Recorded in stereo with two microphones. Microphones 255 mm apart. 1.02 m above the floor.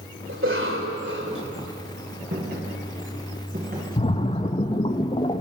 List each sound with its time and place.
0.3 s a cough: 55° right (ahead or behind), 4 m
2.3 s footsteps: 40° right (ahead or behind), 8 m; by 3.9 s 35° right (ahead or behind), 6.5 m
4.0 s a splash: 25° left (ahead or behind), 1.2 m